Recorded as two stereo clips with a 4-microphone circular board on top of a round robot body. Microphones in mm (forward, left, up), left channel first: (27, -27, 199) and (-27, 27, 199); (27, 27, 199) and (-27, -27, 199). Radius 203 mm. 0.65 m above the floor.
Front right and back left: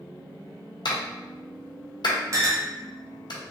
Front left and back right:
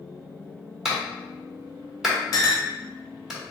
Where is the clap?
50° right, 1.5 m.